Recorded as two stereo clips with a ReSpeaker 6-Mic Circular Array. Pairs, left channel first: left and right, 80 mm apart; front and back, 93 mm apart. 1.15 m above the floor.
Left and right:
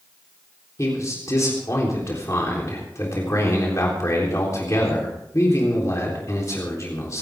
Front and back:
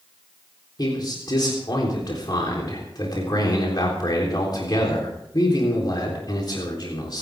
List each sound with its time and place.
0.8 s a man speaking: 40° left, 3.5 m